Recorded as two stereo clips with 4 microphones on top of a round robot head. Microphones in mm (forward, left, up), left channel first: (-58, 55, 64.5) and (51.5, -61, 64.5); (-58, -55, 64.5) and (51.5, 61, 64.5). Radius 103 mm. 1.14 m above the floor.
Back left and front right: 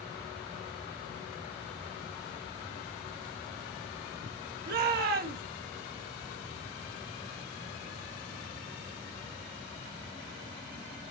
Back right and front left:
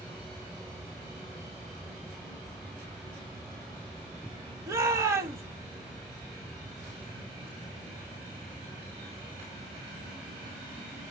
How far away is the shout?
About 2.5 m.